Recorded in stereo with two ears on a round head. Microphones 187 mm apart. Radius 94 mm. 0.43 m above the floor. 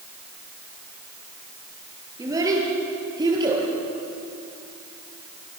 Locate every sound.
2.2 s a child speaking: 15° right (ahead or behind), 7 m; by 3.6 s 20° right (ahead or behind), 8 m